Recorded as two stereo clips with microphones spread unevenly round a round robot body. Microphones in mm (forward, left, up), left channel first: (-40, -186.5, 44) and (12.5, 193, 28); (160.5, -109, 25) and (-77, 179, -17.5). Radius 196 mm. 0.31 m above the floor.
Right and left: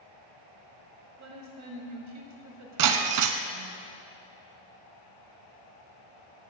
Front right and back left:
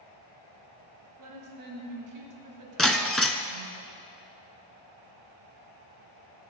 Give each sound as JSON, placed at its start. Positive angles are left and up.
{"t": 1.2, "sound": "a woman speaking", "azimuth_deg": 115, "distance_m": 1.8}
{"t": 2.8, "sound": "breaking glass", "azimuth_deg": 35, "distance_m": 0.5}